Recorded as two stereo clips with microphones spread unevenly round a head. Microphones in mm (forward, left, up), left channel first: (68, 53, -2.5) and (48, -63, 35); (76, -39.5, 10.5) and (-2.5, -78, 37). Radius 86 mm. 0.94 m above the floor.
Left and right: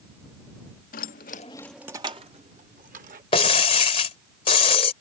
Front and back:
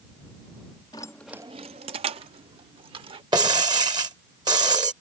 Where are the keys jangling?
95° left; by 3.2 s 140° right.